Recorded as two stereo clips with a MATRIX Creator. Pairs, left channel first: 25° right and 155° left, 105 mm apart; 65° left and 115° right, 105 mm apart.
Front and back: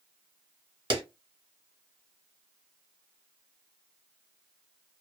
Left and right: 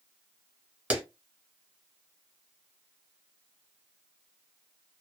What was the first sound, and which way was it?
A clap, 175° left.